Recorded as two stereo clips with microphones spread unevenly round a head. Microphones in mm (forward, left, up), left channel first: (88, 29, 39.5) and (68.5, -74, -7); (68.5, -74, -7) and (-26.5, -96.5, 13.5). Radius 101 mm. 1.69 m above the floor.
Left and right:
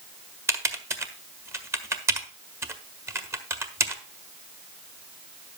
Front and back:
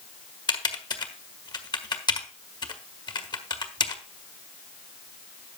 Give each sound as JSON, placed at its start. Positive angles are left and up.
{"t": 0.5, "sound": "typing on a keyboard", "azimuth_deg": -30, "distance_m": 1.6}